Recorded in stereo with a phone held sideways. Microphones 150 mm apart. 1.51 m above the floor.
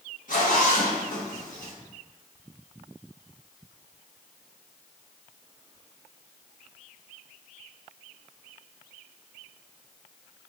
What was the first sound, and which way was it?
A zipper, 60° left (ahead or behind).